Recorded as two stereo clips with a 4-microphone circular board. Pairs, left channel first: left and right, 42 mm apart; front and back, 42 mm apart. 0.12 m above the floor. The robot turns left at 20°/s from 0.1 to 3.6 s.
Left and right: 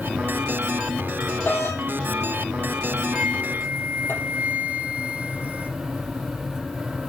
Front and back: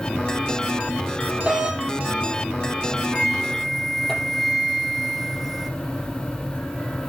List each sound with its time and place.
1.4 s a doorbell: 125° left, 4 m; by 4.1 s 80° left, 4 m
3.1 s a flute: 75° right, 1.5 m; by 5.7 s 85° right, 1.5 m